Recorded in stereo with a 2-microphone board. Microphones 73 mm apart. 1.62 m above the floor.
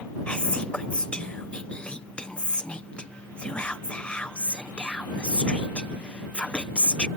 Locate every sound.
0.3 s whispering: 15° left (ahead or behind)